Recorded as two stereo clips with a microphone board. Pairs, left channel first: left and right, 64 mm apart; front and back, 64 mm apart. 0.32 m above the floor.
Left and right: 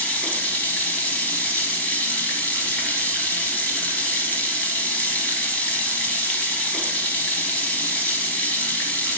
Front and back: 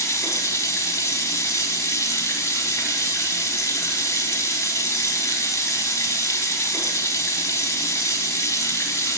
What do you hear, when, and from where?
0.0 s running water: 25° left, 0.9 m